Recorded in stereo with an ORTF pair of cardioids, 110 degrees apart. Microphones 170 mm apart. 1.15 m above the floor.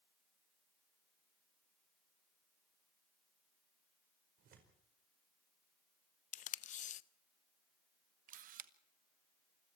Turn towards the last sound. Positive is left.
turn(degrees=-55)